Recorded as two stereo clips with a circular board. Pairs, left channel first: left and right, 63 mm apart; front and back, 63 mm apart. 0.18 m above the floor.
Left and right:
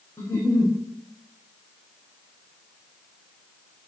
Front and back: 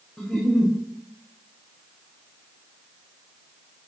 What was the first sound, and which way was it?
A giggle, 95° left.